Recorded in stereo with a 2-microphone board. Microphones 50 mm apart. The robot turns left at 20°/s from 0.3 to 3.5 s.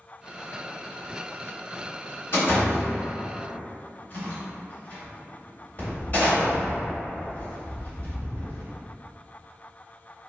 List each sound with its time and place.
2.3 s a door slam: 60° left (ahead or behind), 1.9 m; by 8.6 s 35° left (ahead or behind), 1.9 m